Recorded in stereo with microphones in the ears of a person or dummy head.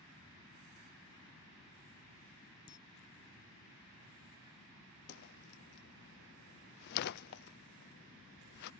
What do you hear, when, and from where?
2.7 s a camera shutter: 25° left (ahead or behind)
5.1 s a whoosh: 50° left (ahead or behind)